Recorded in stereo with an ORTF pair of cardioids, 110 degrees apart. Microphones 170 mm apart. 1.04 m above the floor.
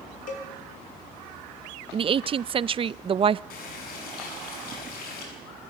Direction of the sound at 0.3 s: 55° left.